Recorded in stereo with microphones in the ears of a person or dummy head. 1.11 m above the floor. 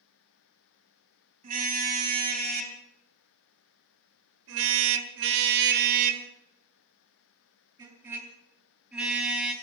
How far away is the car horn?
About 3.5 m.